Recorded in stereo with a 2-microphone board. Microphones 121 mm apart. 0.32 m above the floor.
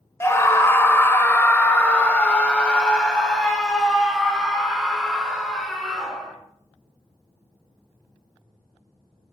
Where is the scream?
20° left (ahead or behind), 1.3 m; by 6.4 s centre (ahead or behind), 4 m.